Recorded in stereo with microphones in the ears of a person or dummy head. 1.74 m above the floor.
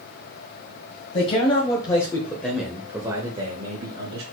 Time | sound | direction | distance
1.1 | a man speaking | 40° left (ahead or behind) | 1.5 m